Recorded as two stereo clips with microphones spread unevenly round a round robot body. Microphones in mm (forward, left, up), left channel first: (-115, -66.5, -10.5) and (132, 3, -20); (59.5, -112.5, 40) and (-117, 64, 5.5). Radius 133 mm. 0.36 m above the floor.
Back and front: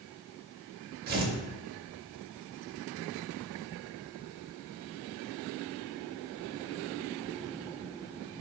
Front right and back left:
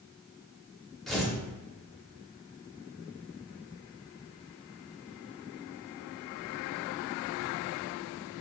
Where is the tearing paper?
55° left, 0.5 m.